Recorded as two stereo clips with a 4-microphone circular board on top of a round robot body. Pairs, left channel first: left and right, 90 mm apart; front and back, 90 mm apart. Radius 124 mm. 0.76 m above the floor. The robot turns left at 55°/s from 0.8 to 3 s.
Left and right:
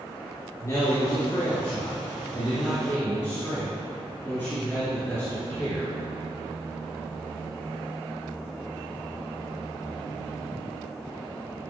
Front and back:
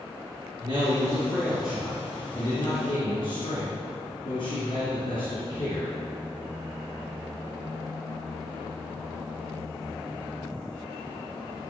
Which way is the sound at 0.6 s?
145° left.